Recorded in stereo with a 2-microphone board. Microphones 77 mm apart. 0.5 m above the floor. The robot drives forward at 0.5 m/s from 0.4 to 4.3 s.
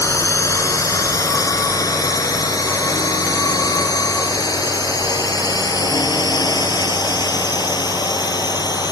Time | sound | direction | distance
0.0 | a drone | 45° left (ahead or behind) | ?